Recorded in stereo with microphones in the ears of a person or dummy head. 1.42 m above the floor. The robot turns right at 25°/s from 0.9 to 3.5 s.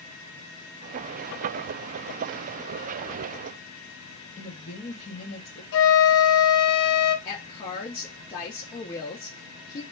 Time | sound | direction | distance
4.4 | a woman speaking | 35° left (ahead or behind) | 0.9 m
5.7 | a flute | 75° left (ahead or behind) | 0.9 m
7.2 | a woman speaking | 25° left (ahead or behind) | 1.1 m